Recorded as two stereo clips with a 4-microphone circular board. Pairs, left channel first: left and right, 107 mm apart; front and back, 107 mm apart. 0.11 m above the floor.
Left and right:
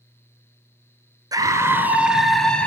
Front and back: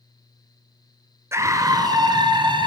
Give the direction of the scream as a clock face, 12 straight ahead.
4 o'clock.